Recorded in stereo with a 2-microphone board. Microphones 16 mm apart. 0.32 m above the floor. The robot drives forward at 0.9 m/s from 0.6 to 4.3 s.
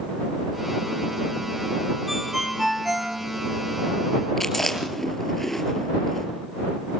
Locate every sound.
2.1 s a ringtone: 15° right (ahead or behind), 4.5 m; by 3.2 s 20° right (ahead or behind), 3.5 m
4.4 s chewing: 20° left (ahead or behind), 4 m